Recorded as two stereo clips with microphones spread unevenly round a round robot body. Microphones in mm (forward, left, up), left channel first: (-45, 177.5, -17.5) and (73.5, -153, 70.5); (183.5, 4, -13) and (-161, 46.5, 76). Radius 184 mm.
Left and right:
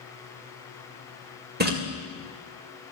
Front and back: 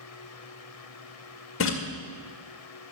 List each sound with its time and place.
1.6 s a splash: straight ahead, 1.8 m